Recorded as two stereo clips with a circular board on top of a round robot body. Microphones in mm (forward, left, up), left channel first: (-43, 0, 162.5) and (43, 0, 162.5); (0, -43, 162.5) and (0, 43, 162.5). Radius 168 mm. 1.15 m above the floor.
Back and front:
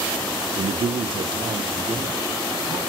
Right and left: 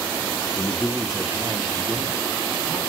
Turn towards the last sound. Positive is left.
turn(degrees=40)